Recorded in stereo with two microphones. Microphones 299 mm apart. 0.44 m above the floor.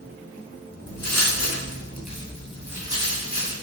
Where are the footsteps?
60° left (ahead or behind), 1.2 m; by 3.5 s 20° right (ahead or behind), 1.8 m.